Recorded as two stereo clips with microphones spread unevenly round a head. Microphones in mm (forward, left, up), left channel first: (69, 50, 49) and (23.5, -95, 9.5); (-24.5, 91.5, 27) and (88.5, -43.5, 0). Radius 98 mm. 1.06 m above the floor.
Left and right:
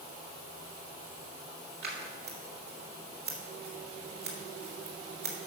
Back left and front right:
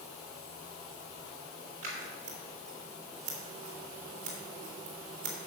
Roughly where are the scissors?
Right.